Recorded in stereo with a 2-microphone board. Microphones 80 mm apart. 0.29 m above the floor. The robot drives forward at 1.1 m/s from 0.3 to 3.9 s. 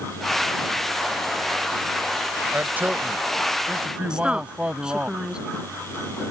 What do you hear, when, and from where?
2.5 s a man speaking: 25° right (ahead or behind); by 5.1 s 15° right (ahead or behind)
4.1 s a woman speaking: 10° right (ahead or behind)